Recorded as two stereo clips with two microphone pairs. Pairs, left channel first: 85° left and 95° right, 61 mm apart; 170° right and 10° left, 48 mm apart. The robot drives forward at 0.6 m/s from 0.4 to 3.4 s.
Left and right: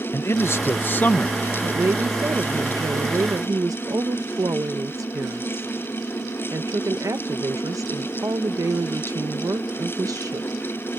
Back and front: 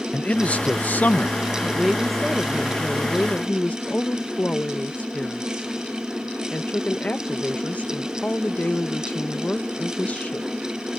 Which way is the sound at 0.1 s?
130° left.